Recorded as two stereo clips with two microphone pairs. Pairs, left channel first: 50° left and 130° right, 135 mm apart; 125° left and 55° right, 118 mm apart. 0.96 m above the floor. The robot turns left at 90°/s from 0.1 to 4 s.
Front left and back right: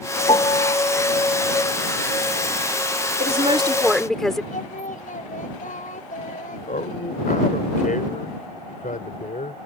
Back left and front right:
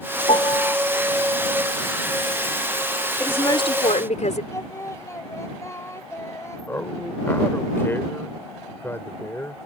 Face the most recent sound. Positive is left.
turn(degrees=55)